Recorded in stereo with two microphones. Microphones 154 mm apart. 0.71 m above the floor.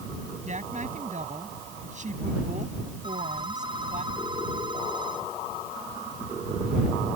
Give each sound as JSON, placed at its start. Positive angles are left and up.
{"t": 0.5, "sound": "a woman speaking", "side_deg": -50}
{"t": 3.0, "sound": "a phone ringing", "side_deg": -30}